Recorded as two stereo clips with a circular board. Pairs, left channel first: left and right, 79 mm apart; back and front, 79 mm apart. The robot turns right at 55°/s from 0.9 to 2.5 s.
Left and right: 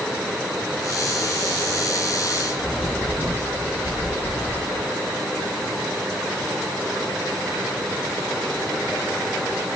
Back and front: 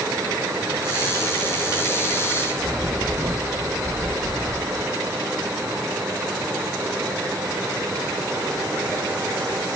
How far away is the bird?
About 1.7 m.